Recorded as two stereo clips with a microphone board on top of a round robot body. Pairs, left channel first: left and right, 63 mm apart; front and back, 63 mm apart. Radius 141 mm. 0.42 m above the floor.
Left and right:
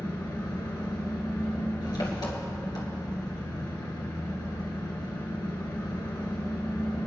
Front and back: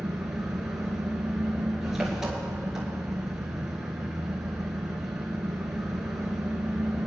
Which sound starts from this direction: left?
An engine running, at 0.0 s.